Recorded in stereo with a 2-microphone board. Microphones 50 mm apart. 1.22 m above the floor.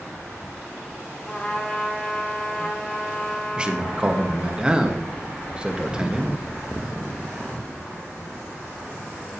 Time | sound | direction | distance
1.2 | a trumpet | 25° left (ahead or behind) | 2 m
3.6 | a man speaking | 20° right (ahead or behind) | 1.1 m